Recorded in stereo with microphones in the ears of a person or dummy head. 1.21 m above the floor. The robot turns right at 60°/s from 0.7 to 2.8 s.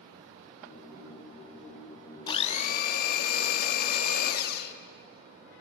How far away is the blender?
About 1.3 m.